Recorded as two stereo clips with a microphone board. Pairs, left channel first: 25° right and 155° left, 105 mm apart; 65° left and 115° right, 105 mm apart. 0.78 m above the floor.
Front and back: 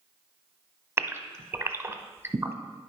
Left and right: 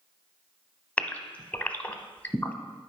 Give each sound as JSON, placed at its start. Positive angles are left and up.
{"t": 1.0, "sound": "a gasp", "azimuth_deg": 125, "distance_m": 0.7}